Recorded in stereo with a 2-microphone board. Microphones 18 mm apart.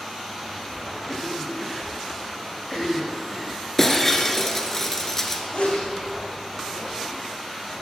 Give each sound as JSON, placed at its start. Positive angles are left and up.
{"t": 1.1, "sound": "a cough", "side_deg": 0, "distance_m": 5.0}
{"t": 3.8, "sound": "breaking glass", "side_deg": 20, "distance_m": 1.9}
{"t": 5.5, "sound": "a sneeze", "side_deg": 65, "distance_m": 4.5}